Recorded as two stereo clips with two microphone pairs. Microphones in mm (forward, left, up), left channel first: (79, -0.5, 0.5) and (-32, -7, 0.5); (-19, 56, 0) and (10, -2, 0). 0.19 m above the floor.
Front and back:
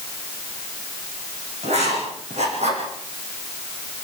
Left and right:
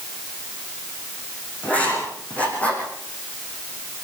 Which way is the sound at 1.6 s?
175° right.